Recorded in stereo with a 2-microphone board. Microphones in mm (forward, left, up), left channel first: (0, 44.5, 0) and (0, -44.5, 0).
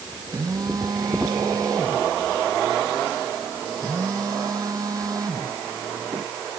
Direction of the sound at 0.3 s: 40° right (ahead or behind).